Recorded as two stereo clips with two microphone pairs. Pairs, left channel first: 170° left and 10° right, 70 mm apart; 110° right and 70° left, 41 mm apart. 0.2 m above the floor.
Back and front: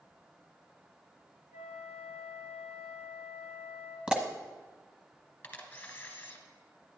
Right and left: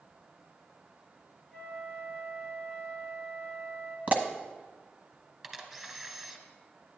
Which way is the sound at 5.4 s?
145° left.